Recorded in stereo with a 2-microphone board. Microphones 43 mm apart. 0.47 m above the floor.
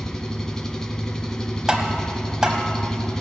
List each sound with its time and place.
0.0 s an engine running: 15° left (ahead or behind), 0.9 m
1.7 s tapping: 15° right (ahead or behind), 1.5 m